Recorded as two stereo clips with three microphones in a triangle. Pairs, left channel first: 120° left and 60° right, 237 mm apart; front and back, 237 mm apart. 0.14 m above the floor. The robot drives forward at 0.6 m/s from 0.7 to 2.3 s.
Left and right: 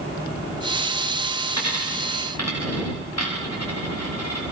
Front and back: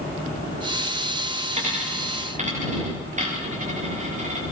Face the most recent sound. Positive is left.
turn(degrees=120)